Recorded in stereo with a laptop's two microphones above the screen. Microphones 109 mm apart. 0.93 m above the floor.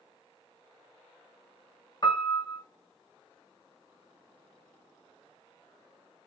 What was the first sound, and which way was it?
A piano, 40° left (ahead or behind).